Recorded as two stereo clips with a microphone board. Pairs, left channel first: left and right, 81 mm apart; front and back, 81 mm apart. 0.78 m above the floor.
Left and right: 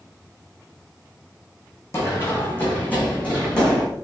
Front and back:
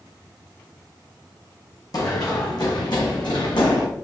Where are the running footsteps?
35° left, 2 m; by 3.9 s 10° left, 2.5 m.